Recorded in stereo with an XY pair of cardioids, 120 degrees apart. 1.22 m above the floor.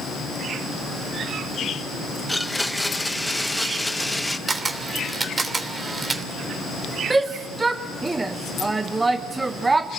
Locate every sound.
2.3 s a blender: 5° left, 1.5 m
4.5 s a camera shutter: 25° right, 3 m
7.1 s a shout: 20° right, 1.1 m